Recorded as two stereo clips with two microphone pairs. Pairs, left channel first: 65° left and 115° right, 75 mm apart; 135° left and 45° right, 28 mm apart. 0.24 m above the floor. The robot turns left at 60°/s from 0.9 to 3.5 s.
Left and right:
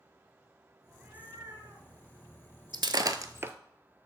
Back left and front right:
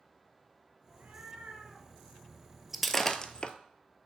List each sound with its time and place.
0.9 s a cat meowing: 40° right, 1.8 m; by 1.9 s 100° right, 1.8 m
2.7 s breaking glass: 130° right, 0.6 m; by 3.5 s 175° right, 0.6 m